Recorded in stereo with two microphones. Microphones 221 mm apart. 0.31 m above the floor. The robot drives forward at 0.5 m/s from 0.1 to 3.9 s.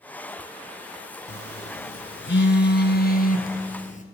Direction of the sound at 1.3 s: 85° left.